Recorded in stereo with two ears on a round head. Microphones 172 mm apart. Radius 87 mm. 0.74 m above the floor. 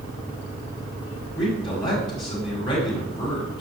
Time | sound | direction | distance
1.4 | a man speaking | 25° left (ahead or behind) | 4 m